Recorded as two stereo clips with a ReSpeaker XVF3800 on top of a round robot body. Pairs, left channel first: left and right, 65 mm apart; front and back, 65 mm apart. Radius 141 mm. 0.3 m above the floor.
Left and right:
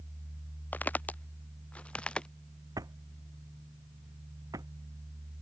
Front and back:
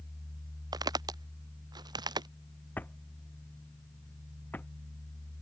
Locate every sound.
0.7 s footsteps: 155° left; by 2.3 s 165° left
2.8 s a drawer: 65° right